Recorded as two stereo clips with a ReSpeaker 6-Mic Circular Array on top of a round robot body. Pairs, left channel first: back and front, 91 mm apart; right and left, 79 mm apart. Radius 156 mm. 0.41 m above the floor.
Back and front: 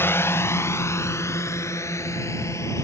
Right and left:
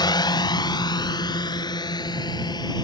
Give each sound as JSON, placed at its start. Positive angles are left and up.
{"t": 0.0, "sound": "a drone", "azimuth_deg": -115}